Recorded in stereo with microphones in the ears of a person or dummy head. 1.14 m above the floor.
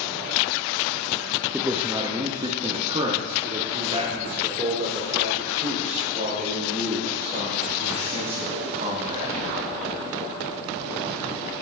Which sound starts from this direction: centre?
A man speaking, at 1.5 s.